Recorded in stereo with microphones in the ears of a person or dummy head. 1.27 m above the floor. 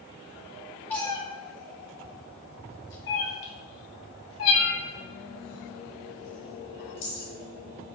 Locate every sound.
0.9 s a cat meowing: 10° left (ahead or behind), 0.7 m; by 7.3 s 80° left, 3.5 m